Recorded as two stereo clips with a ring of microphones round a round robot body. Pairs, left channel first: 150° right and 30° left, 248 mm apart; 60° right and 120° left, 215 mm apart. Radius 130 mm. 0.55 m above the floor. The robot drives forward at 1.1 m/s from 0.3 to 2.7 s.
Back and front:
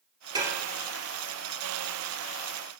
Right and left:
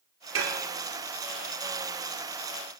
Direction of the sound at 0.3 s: 105° left.